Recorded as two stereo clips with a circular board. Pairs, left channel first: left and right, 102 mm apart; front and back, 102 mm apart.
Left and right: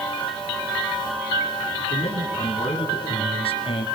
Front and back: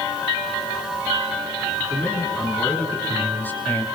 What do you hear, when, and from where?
1.8 s a man speaking: 70° left, 5.5 m; by 3.9 s 75° left, 2.5 m